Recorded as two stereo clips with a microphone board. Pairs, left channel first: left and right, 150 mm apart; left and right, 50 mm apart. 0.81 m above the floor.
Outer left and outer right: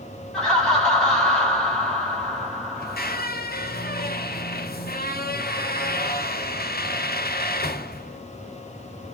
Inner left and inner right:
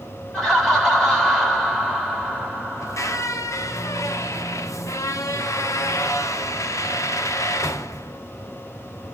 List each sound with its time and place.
0.3 s laughter: 5° left (ahead or behind), 3.5 m
2.8 s a squeak: 85° left, 0.7 m